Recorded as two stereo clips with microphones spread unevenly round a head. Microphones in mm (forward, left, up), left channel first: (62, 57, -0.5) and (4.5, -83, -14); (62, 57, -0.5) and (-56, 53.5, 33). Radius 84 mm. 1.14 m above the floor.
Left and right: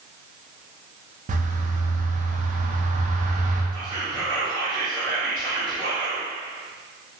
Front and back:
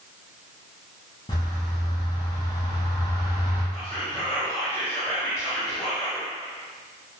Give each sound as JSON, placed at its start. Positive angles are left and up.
{"t": 1.3, "sound": "a bird", "azimuth_deg": -70, "distance_m": 0.5}
{"t": 3.7, "sound": "whispering", "azimuth_deg": -65, "distance_m": 0.8}